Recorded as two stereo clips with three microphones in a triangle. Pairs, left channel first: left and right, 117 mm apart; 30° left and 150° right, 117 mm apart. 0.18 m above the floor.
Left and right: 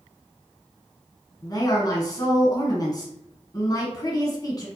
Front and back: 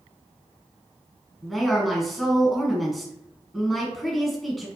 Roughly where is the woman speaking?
Behind left.